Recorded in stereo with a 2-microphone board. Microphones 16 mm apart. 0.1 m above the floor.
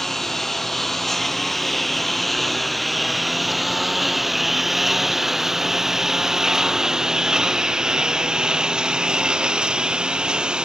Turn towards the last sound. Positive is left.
turn(degrees=-70)  # may be behind; listen again after turning